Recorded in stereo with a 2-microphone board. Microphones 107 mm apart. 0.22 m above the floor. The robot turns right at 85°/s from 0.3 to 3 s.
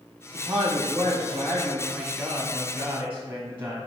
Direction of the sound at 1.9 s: 5° left (ahead or behind).